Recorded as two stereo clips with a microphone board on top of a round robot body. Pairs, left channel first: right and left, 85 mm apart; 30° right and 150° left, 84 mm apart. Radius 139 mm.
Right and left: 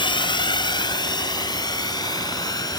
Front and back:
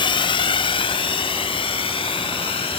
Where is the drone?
60° right; by 2.8 s 45° right.